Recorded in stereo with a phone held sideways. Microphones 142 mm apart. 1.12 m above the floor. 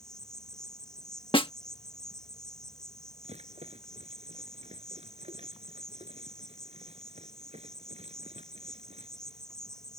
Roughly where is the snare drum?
Left.